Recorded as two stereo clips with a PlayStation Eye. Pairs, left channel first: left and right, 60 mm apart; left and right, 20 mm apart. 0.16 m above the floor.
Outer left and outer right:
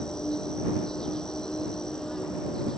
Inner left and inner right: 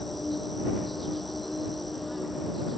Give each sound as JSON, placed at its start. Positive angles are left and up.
{"t": 0.0, "sound": "an insect", "side_deg": 10}